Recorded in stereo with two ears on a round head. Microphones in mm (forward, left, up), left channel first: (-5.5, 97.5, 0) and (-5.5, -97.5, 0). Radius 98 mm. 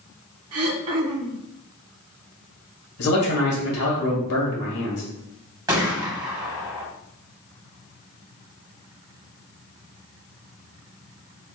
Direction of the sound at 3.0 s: 80° left.